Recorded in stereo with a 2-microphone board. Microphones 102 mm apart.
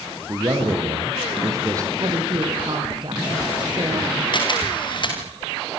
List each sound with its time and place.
0.3 s a man speaking: 30° right (ahead or behind), 5 m
2.0 s a woman speaking: 45° right (ahead or behind), 6 m
4.3 s a camera shutter: 45° left (ahead or behind), 7.5 m